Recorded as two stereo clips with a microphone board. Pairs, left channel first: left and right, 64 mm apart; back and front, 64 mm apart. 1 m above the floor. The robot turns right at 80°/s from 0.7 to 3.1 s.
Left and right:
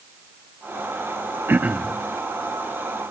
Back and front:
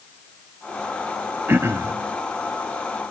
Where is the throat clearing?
45° right, 0.6 m; by 1.9 s 10° right, 0.6 m.